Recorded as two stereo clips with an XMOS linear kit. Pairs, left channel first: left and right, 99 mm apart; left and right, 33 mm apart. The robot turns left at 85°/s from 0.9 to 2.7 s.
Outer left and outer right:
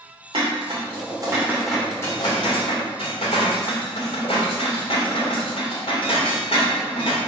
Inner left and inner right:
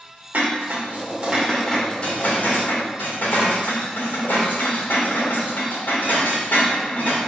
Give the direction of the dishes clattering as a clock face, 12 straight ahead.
4 o'clock.